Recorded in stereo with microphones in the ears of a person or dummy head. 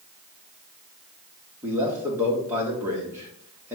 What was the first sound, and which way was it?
A man speaking, 10° right (ahead or behind).